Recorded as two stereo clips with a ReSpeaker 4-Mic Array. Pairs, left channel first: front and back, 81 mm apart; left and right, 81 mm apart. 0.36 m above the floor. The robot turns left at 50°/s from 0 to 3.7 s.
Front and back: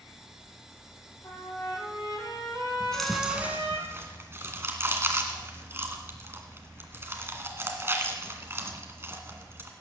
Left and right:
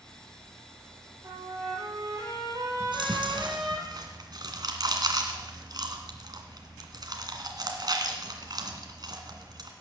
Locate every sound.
1.2 s a trumpet: 60° right, 6.5 m; by 3.8 s 175° left, 6.5 m
2.8 s chewing: 75° right, 2 m; by 9.7 s 120° right, 2 m